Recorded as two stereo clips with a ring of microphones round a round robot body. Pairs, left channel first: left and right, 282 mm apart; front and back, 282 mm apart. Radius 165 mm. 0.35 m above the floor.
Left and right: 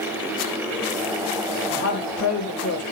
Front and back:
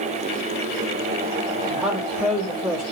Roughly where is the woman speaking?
Left.